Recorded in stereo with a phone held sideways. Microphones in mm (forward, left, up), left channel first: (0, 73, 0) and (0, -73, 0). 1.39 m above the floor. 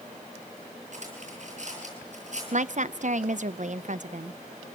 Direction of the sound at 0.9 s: 55° right (ahead or behind).